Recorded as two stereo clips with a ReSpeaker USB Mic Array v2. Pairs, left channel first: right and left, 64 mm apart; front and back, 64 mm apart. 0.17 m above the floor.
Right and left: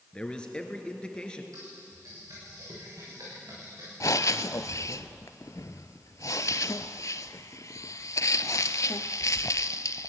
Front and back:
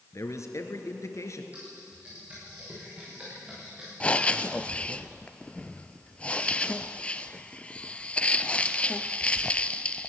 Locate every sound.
0.1 s a man speaking: 20° right, 2 m
1.5 s typing on a keyboard: 110° left, 9.5 m
4.0 s breathing: 70° right, 0.6 m